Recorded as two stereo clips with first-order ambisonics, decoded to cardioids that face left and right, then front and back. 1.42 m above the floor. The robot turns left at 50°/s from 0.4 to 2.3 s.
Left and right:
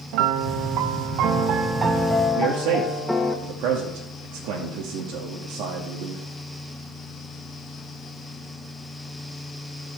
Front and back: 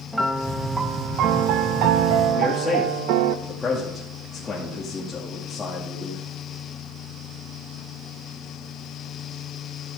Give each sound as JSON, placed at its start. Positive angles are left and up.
{"t": 0.1, "sound": "a piano", "azimuth_deg": -90, "distance_m": 0.9}
{"t": 2.4, "sound": "a man speaking", "azimuth_deg": -75, "distance_m": 2.0}